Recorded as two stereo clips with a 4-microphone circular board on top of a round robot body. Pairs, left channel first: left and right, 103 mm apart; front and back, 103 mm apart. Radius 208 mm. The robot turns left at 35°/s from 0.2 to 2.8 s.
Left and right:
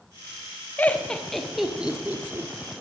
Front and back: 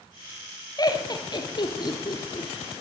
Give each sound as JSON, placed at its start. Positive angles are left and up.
{"t": 0.8, "sound": "laughter", "azimuth_deg": 25, "distance_m": 1.6}